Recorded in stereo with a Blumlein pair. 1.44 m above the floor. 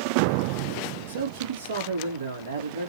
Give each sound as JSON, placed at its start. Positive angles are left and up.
{"t": 1.1, "sound": "a man speaking", "azimuth_deg": -65, "distance_m": 3.0}